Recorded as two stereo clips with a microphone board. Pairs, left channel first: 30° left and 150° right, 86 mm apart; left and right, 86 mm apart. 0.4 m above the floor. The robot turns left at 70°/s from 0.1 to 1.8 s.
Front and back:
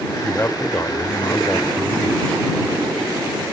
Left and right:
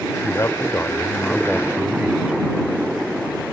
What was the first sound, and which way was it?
A man speaking, 85° left.